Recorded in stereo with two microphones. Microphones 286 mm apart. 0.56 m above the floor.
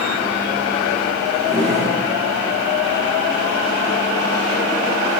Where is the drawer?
20° right (ahead or behind), 5 m.